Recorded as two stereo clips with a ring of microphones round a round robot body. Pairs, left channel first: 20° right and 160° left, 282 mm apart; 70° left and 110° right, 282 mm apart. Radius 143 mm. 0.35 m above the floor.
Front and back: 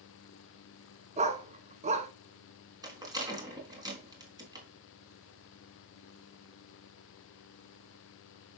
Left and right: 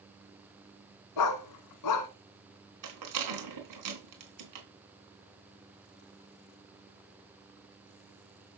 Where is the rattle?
125° right, 3.5 m.